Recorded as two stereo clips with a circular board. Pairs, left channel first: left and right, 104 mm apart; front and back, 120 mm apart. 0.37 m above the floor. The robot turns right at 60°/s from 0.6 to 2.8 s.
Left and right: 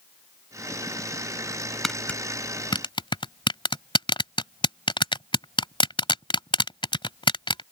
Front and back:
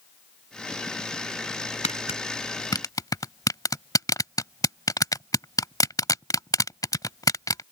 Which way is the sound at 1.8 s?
Straight ahead.